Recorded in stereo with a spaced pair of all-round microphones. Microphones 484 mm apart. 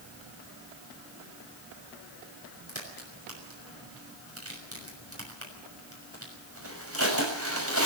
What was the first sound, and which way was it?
A crack, 25° right (ahead or behind).